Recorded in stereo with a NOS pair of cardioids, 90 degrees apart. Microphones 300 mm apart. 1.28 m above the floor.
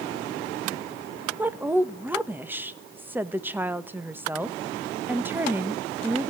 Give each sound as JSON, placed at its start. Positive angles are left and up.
{"t": 1.4, "sound": "a woman speaking", "azimuth_deg": -5, "distance_m": 1.4}